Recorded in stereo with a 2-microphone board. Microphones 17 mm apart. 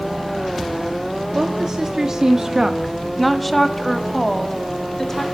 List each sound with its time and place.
1.4 s a woman speaking: 35° right (ahead or behind), 1.1 m; by 5.2 s 20° left (ahead or behind), 1.9 m